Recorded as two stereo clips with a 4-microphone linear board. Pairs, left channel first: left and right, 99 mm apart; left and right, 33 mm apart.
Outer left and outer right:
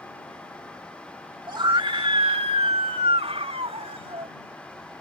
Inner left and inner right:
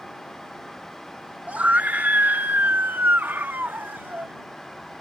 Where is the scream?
50° right (ahead or behind); by 4.3 s 85° right.